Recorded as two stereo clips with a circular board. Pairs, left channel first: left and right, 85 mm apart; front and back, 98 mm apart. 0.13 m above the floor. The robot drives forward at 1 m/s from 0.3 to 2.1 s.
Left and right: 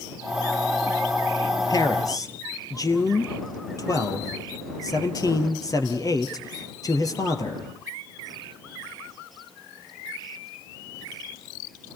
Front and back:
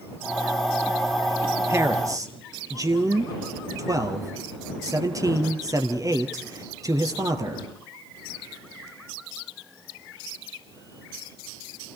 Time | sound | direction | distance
1.7 | a man speaking | 120° left | 2.5 m